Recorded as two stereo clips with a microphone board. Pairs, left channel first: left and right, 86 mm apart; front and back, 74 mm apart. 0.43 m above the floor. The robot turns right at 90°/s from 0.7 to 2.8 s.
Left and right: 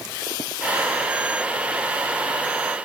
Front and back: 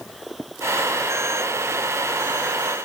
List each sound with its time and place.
Only background noise.